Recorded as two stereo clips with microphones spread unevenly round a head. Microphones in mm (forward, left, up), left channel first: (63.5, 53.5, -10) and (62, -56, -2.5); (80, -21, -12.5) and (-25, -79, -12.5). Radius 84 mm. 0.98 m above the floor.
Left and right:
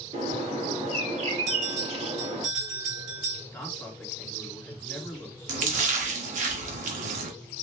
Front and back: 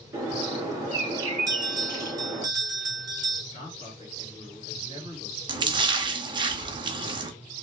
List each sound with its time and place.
0.1 s a bird: 85° right, 2.5 m
1.5 s a bell: 95° right, 1.6 m
3.5 s a man speaking: 15° left, 2 m
5.5 s a splash: 100° right, 0.9 m